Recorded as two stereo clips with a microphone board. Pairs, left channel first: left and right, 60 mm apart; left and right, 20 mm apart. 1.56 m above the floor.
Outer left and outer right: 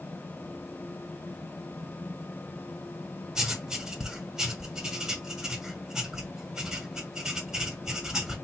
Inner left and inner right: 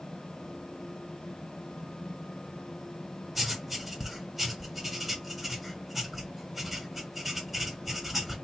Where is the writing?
10° right (ahead or behind), 1.3 m.